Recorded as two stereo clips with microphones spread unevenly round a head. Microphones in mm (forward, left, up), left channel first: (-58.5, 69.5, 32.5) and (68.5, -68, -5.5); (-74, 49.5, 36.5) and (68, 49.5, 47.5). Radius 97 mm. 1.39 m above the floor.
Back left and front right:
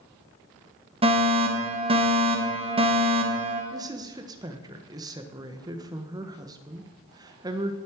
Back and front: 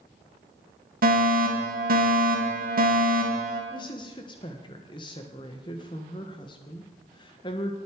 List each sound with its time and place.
1.0 s a fire alarm: 10° left, 2.5 m
3.7 s a woman speaking: 115° right, 1.2 m